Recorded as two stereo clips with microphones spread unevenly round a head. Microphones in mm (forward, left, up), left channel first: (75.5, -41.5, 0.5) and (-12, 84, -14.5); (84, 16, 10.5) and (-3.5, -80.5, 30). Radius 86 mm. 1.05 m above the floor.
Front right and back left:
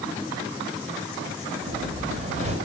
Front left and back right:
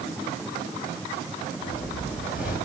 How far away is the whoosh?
About 3.5 m.